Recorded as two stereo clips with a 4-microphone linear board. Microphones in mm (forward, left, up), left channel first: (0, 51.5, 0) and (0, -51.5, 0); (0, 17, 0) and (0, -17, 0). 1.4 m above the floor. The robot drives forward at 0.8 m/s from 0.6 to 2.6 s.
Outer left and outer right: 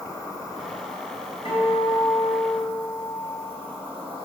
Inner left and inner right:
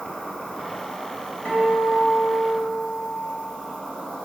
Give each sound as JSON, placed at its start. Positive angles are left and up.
{"t": 0.0, "sound": "an insect", "side_deg": 35, "distance_m": 2.0}
{"t": 1.4, "sound": "a guitar", "side_deg": 65, "distance_m": 3.0}